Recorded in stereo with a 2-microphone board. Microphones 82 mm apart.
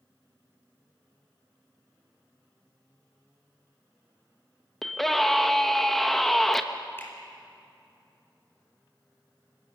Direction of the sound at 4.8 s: 5° left (ahead or behind).